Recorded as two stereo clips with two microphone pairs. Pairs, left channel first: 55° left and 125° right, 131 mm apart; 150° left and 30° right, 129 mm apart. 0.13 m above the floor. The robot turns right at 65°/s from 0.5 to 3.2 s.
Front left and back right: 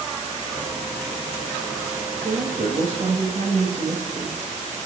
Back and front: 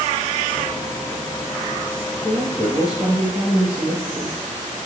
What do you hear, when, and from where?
2.2 s a woman speaking: 155° right, 3 m; by 4.4 s 95° right, 3 m